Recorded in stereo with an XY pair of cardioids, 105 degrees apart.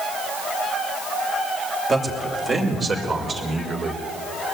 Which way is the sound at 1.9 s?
35° right.